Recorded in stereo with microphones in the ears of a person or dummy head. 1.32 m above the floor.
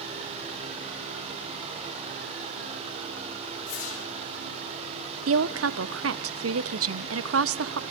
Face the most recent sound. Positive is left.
turn(degrees=-65)  # may be behind; listen again after turning